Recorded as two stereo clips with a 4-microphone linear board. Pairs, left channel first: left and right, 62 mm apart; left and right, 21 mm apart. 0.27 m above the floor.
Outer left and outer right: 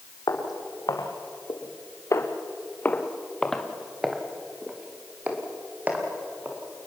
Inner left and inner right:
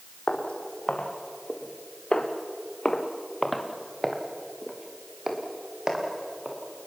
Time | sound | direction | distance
0.3 | footsteps | 85° left | 3.5 m